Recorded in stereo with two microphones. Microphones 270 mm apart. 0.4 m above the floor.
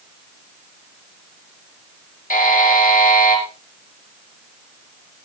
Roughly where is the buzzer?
Left.